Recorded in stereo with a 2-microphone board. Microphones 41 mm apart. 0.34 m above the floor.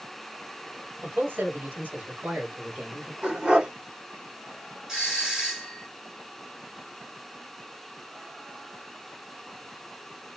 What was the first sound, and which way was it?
A man speaking, 50° right (ahead or behind).